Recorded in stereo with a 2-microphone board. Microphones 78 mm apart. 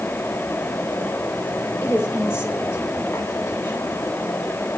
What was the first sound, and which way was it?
A woman speaking, 35° left (ahead or behind).